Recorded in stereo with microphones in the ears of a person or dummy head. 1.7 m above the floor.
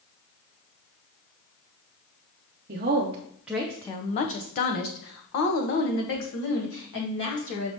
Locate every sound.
2.7 s a woman speaking: 40° right (ahead or behind), 0.7 m; by 7.7 s 70° left (ahead or behind), 2.5 m